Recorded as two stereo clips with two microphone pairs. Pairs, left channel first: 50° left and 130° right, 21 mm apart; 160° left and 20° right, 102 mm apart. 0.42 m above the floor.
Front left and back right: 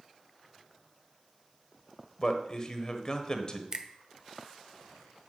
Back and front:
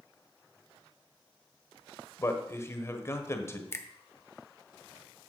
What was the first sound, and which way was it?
A man speaking, 100° left.